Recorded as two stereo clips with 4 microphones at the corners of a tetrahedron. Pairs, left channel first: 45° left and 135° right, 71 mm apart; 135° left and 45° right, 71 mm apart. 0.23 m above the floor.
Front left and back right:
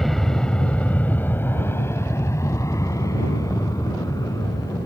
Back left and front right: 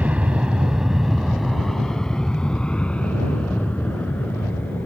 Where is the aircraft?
40° right; by 4.9 s 70° left.